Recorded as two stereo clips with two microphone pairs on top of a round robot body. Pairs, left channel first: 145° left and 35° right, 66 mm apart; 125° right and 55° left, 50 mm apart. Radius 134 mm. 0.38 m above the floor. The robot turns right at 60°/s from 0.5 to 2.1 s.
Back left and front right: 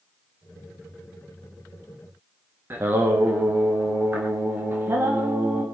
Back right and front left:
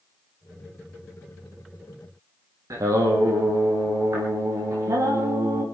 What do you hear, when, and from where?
2.7 s singing: 25° left, 4.5 m